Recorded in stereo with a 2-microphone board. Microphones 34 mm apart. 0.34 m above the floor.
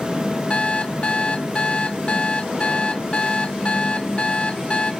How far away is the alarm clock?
About 0.7 m.